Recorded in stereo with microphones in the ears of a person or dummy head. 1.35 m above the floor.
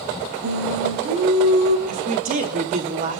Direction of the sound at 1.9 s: 45° right (ahead or behind).